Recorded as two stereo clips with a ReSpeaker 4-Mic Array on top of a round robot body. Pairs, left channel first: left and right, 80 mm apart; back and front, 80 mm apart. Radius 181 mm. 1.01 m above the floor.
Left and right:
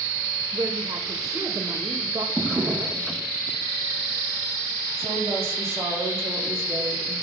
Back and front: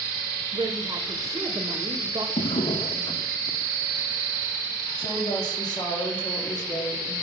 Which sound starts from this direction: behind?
A drawer, at 2.4 s.